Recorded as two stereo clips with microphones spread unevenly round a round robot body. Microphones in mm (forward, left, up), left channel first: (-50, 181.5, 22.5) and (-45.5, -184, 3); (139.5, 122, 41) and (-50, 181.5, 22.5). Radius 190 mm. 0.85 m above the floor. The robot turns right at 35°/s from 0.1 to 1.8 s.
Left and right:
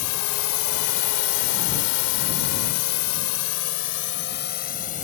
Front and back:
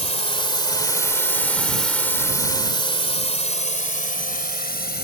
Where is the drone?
40° left; by 5.0 s 20° left.